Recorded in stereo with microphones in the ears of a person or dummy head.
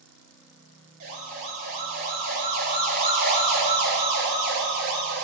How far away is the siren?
About 9 m.